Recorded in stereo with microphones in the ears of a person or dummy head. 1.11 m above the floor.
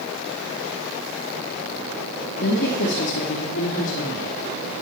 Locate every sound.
2.4 s a woman speaking: 55° left (ahead or behind), 2.5 m; by 4.3 s 70° left (ahead or behind), 3.5 m